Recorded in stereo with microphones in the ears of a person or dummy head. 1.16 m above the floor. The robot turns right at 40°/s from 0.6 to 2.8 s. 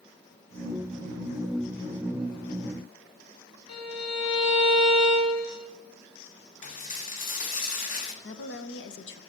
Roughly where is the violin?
Left.